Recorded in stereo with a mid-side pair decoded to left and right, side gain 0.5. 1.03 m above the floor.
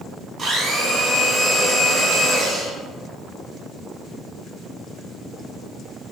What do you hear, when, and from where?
0.4 s a blender: 45° right, 1.4 m